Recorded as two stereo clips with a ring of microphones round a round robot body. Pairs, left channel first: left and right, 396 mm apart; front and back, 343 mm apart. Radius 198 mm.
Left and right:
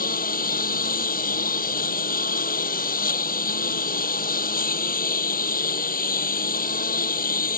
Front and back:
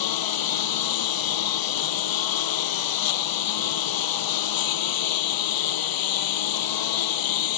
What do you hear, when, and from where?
0.0 s a lawn mower: 20° left